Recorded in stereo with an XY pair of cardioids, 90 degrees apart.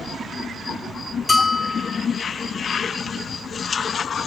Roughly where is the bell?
Ahead left.